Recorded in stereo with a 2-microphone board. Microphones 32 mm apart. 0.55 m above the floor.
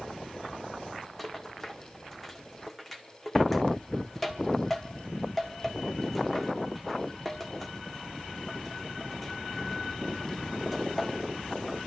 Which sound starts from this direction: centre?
A rattle, at 1.2 s.